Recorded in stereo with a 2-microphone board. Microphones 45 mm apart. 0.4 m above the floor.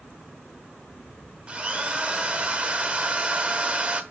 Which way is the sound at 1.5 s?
25° right (ahead or behind).